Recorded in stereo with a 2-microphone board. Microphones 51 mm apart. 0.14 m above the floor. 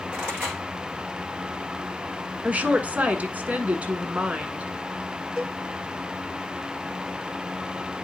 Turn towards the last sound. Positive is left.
turn(degrees=-20)  # may be behind; listen again after turning